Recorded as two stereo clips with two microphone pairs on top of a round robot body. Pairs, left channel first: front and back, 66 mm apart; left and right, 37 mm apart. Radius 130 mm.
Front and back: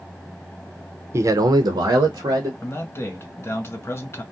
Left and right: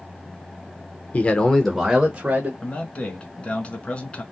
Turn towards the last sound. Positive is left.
turn(degrees=35)